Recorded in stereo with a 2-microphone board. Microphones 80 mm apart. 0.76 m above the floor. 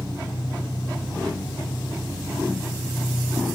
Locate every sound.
0.0 s an engine running: 65° left (ahead or behind), 1.6 m